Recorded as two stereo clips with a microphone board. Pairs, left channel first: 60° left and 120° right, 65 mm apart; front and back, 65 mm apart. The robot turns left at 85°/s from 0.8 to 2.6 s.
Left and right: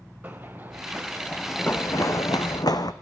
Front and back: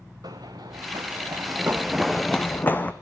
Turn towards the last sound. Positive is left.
turn(degrees=65)